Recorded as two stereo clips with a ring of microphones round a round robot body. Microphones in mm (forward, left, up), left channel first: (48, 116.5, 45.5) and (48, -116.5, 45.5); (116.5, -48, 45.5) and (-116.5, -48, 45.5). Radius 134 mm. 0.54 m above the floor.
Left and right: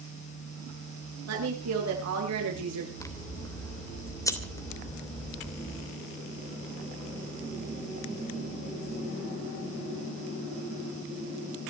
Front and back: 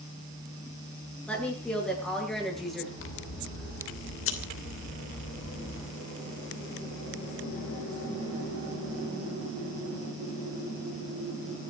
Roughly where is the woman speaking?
Right.